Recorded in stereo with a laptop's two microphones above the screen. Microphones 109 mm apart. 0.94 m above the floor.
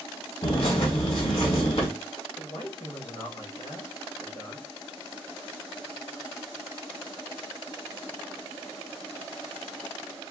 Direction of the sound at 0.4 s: 65° left (ahead or behind).